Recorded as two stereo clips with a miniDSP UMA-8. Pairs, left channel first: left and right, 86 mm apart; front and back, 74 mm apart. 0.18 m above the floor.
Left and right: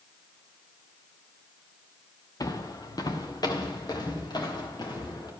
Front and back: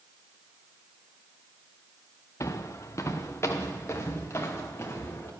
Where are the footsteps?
45° left, 1.3 m; by 5.3 s 55° left, 3 m.